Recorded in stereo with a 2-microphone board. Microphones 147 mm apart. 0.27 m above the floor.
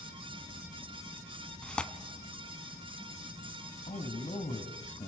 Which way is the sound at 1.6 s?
5° left (ahead or behind).